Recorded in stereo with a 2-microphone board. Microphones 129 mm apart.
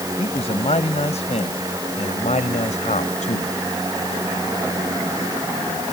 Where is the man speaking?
55° left (ahead or behind); by 3.5 s 75° left (ahead or behind).